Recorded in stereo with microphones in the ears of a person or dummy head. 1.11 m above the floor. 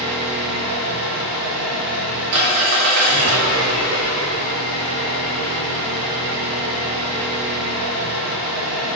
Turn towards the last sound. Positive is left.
turn(degrees=-60)  # may be behind; listen again after turning